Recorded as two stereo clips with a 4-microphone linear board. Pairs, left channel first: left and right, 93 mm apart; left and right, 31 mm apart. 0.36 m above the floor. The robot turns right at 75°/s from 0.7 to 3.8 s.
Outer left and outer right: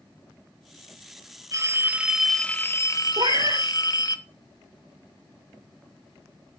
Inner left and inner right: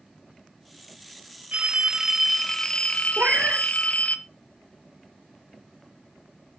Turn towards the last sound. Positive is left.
turn(degrees=-15)